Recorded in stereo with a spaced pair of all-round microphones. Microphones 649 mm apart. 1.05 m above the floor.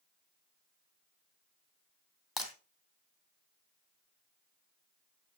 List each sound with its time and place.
2.4 s breaking glass: 35° left (ahead or behind), 2.5 m